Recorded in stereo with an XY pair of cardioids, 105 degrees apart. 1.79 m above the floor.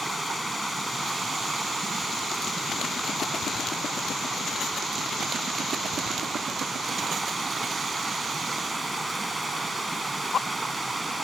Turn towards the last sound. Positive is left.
turn(degrees=-20)